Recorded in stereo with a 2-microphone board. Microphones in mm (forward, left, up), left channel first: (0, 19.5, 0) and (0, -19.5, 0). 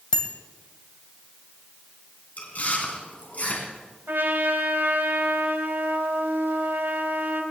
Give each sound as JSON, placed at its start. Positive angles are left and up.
{"t": 0.1, "sound": "a bicycle bell", "side_deg": 20, "distance_m": 2.0}
{"t": 2.4, "sound": "chewing", "side_deg": 45, "distance_m": 4.0}
{"t": 4.1, "sound": "a trumpet", "side_deg": -75, "distance_m": 2.5}